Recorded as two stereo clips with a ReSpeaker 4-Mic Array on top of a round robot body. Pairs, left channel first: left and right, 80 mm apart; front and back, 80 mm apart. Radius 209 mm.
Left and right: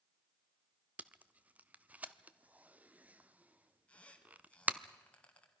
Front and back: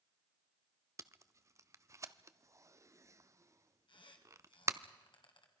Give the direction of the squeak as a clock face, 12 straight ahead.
12 o'clock.